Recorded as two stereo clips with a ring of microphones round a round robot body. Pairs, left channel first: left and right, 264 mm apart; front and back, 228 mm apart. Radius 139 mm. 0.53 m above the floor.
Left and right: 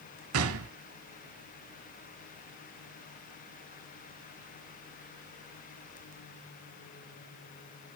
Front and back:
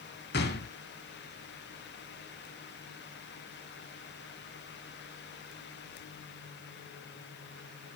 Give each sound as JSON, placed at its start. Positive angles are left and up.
{"t": 0.3, "sound": "a gunshot", "azimuth_deg": -55, "distance_m": 0.7}